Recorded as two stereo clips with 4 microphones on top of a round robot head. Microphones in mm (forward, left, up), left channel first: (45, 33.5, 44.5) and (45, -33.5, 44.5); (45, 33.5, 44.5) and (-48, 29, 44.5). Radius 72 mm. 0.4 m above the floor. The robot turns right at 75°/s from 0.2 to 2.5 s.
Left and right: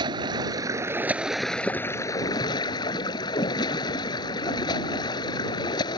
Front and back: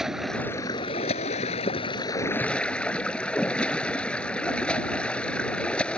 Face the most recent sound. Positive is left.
turn(degrees=80)